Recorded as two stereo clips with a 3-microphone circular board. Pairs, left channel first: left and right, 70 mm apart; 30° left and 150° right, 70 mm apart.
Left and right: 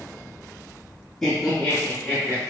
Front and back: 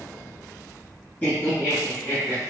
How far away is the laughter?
About 1.8 m.